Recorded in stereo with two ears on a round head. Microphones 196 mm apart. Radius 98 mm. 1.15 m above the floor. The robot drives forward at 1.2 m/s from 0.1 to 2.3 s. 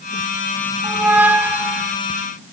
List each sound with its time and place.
0.8 s a squeak: 10° right (ahead or behind), 0.8 m; by 1.9 s 5° right (ahead or behind), 1.2 m